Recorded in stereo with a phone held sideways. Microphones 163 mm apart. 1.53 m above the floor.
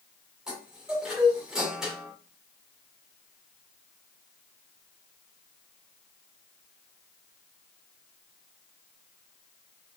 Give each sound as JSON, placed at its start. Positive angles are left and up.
{"t": 0.5, "sound": "a chime", "side_deg": -5, "distance_m": 2.5}